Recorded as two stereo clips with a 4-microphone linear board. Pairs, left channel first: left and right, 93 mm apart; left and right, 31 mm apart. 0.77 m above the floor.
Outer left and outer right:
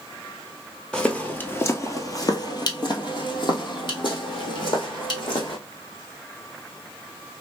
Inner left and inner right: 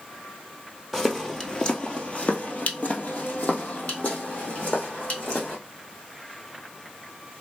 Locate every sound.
0.9 s footsteps: 5° left (ahead or behind), 0.9 m; by 5.6 s 55° left (ahead or behind), 2 m